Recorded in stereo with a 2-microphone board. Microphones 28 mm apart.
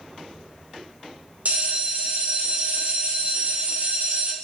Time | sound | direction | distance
1.4 | a bell | 50° right (ahead or behind) | 0.6 m